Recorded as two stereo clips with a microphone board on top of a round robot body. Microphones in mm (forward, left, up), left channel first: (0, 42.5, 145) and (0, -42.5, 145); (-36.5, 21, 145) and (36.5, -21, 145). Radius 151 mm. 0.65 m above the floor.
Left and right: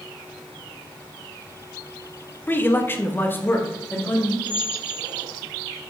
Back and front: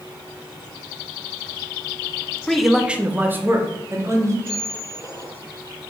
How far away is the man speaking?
About 1.1 m.